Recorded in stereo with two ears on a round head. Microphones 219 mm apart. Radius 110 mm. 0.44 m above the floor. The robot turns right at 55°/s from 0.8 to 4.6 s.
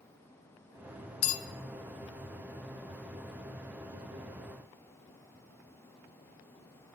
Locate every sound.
1.2 s a bell: 60° left (ahead or behind), 0.9 m; by 1.4 s 55° left (ahead or behind), 0.9 m